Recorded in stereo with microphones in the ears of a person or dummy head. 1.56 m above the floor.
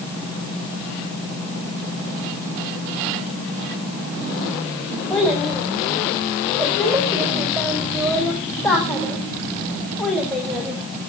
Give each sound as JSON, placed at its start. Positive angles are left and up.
{"t": 5.1, "sound": "a child speaking", "side_deg": 5, "distance_m": 4.0}